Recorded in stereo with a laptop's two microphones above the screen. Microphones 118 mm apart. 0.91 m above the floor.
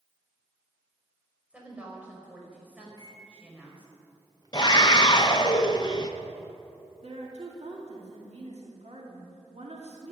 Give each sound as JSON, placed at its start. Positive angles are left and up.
{"t": 1.5, "sound": "a woman speaking", "side_deg": -10, "distance_m": 4.5}
{"t": 2.9, "sound": "a microwave", "side_deg": -35, "distance_m": 3.0}
{"t": 4.5, "sound": "a scream", "side_deg": 35, "distance_m": 0.8}
{"t": 7.0, "sound": "a woman speaking", "side_deg": -65, "distance_m": 2.5}